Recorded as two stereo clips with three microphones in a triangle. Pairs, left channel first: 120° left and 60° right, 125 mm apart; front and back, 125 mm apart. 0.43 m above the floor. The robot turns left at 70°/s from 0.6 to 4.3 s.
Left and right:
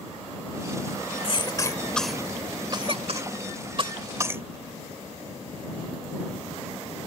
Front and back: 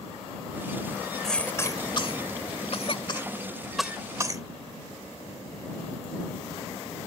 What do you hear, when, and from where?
1.2 s a cough: 85° left; by 4.4 s 125° right